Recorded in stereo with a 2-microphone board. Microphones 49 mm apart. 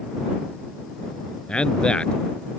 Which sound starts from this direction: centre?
A man speaking, at 1.5 s.